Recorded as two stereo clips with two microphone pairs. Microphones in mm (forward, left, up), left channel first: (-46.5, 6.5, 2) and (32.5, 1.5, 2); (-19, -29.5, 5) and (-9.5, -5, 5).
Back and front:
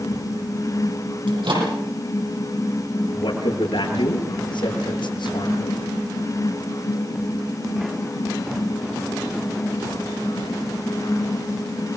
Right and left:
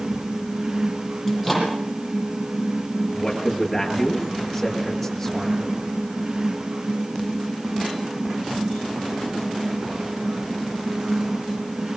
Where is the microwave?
15° right, 10 m.